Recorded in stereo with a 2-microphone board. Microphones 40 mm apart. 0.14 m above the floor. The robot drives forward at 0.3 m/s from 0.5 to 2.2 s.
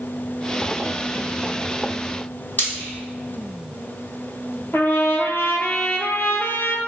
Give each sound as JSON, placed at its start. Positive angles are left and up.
{"t": 2.6, "sound": "frying", "side_deg": 50, "distance_m": 1.3}
{"t": 4.7, "sound": "a trumpet", "side_deg": 75, "distance_m": 0.6}